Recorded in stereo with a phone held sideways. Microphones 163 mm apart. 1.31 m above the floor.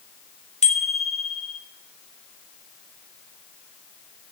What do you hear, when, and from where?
0.6 s a bicycle bell: 40° left (ahead or behind), 3.5 m